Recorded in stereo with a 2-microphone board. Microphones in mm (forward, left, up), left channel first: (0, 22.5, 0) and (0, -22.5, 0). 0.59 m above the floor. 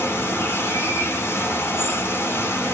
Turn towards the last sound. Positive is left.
turn(degrees=65)  # may be behind; listen again after turning